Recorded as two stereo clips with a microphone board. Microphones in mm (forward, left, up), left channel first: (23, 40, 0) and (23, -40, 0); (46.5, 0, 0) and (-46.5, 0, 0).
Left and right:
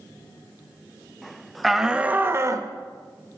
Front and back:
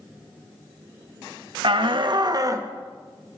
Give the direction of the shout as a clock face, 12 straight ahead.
6 o'clock.